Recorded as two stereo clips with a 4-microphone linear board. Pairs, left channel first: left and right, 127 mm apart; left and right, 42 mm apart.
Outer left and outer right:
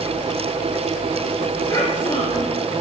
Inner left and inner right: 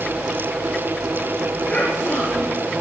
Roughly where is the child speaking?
Left.